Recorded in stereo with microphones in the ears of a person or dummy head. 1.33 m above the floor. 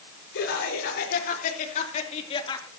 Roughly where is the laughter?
Left.